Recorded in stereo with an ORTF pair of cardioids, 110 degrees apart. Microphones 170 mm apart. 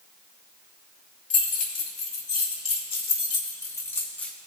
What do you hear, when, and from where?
1.3 s keys jangling: 50° left, 3.5 m; by 4.3 s 5° left, 2.0 m